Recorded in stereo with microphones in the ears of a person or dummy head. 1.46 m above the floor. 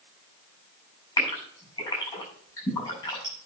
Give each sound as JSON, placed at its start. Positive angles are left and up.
{"t": 1.2, "sound": "a gasp", "side_deg": 15, "distance_m": 8.0}